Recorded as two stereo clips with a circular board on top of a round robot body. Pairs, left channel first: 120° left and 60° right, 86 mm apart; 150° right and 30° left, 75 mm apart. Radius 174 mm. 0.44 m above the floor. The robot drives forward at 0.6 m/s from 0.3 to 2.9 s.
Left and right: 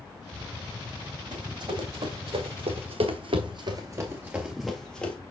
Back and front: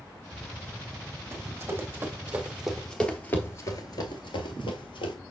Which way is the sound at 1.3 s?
25° right.